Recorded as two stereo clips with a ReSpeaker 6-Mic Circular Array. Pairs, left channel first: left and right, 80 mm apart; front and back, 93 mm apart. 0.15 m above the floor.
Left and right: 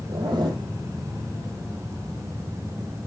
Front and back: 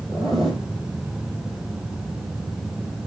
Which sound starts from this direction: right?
A zipper, at 0.1 s.